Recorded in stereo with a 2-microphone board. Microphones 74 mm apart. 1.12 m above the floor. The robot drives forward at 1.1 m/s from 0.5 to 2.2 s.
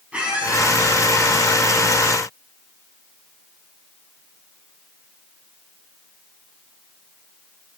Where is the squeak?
15° right (ahead or behind), 5 m.